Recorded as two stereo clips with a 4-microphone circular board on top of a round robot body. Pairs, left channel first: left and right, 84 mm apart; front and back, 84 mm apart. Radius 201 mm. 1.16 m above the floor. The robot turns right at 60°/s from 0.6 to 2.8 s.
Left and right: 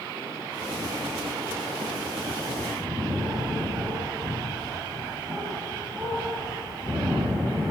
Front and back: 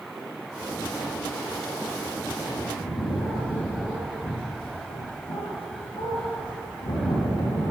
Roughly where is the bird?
Ahead right.